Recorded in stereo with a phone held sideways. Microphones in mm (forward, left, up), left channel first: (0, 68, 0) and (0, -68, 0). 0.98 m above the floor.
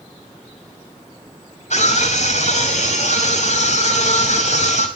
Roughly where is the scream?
Left.